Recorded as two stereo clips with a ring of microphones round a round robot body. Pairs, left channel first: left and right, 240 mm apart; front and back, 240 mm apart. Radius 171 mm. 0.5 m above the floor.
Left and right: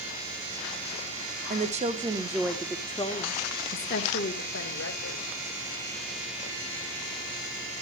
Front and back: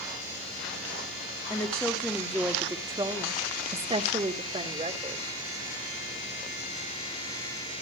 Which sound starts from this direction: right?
A woman speaking, at 1.5 s.